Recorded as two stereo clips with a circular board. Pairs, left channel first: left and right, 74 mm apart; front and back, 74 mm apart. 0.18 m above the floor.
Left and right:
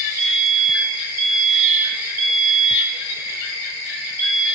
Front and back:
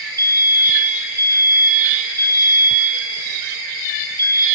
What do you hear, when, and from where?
0.2 s a fire alarm: 155° right, 6 m